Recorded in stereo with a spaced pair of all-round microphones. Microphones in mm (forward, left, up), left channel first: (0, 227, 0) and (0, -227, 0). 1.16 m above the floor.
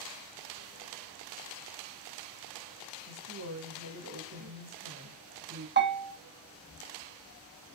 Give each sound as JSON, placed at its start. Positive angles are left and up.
{"t": 3.1, "sound": "a woman speaking", "side_deg": -40, "distance_m": 1.4}
{"t": 5.8, "sound": "a bell", "side_deg": -25, "distance_m": 0.6}